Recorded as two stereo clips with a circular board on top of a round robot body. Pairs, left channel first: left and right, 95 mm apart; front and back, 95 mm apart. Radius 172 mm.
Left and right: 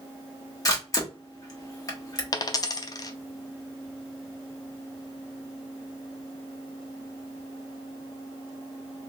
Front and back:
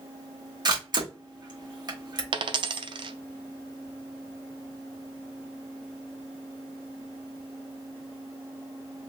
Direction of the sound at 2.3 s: 140° left.